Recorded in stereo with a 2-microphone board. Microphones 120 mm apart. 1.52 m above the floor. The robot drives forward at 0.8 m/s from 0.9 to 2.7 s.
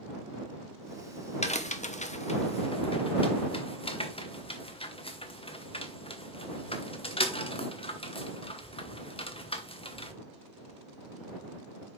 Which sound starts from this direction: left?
A crack, at 1.4 s.